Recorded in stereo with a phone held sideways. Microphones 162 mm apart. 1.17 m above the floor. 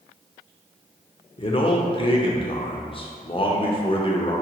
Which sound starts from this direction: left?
A man speaking, at 1.4 s.